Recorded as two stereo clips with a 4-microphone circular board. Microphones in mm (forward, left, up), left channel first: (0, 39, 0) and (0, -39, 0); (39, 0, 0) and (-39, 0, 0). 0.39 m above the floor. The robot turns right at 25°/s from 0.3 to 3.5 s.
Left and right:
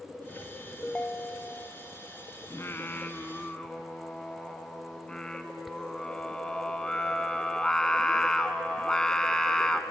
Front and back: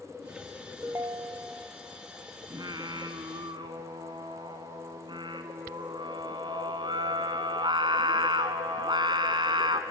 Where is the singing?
145° left, 1.2 m; by 9.8 s 170° left, 1.2 m.